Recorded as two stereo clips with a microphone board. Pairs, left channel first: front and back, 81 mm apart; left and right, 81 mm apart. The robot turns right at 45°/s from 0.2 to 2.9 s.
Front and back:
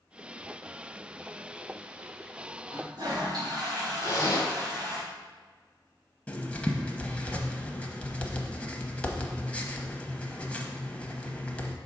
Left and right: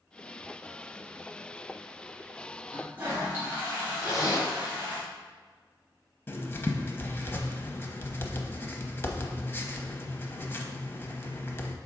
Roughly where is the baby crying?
No baby crying in this recording.